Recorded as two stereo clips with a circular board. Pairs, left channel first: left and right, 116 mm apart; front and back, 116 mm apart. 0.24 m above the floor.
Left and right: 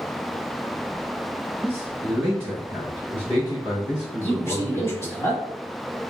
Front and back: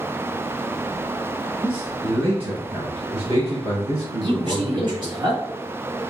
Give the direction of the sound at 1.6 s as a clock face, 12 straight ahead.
6 o'clock.